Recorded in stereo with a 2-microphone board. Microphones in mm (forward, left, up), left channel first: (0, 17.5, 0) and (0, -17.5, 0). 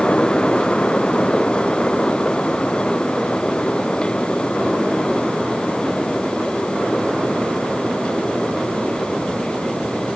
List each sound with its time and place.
Only background noise.